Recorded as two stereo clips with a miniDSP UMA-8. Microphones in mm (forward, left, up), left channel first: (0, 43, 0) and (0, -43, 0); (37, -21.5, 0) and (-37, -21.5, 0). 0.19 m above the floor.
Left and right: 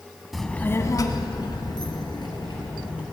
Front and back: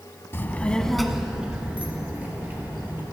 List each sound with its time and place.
0.3 s a child speaking: straight ahead, 0.7 m; by 3.0 s 115° left, 2.5 m